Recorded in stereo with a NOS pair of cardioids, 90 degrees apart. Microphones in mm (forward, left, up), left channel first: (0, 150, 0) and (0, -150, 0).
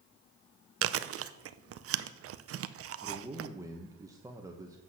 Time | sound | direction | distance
0.8 | chewing | 55° right | 0.6 m
3.0 | a man speaking | 10° right | 1.2 m